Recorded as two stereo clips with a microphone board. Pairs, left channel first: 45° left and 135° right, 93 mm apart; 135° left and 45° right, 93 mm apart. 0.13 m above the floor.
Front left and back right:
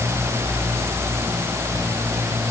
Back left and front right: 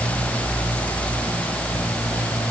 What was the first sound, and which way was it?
Only background noise.